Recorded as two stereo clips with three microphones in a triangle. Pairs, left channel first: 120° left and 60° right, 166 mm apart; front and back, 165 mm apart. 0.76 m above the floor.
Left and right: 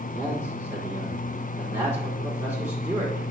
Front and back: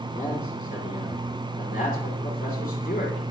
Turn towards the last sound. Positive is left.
turn(degrees=15)